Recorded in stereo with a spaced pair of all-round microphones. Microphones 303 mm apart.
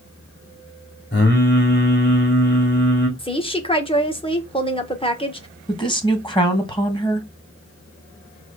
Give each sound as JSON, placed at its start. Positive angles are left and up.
{"t": 1.1, "sound": "singing", "side_deg": 35, "distance_m": 2.5}
{"t": 3.2, "sound": "a woman speaking", "side_deg": 15, "distance_m": 1.4}
{"t": 5.7, "sound": "a woman speaking", "side_deg": 15, "distance_m": 1.8}